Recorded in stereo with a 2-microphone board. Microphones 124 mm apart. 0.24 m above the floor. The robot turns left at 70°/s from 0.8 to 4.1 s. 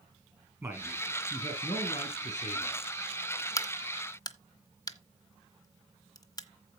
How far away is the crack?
About 1.0 m.